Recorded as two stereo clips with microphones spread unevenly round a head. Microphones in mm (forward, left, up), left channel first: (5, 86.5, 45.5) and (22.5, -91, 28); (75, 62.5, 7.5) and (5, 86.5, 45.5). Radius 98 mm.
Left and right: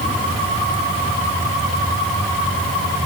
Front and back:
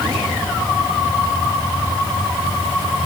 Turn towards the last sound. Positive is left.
No sound to turn to.